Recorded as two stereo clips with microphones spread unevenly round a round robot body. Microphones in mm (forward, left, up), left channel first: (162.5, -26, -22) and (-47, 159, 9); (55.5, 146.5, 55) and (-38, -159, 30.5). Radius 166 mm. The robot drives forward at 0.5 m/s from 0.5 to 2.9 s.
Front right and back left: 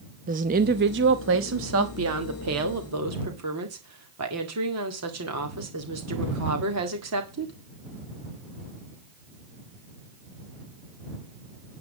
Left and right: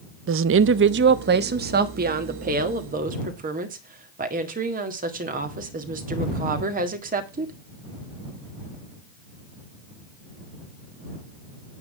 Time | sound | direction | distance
0.3 | a woman speaking | 155° right | 0.6 m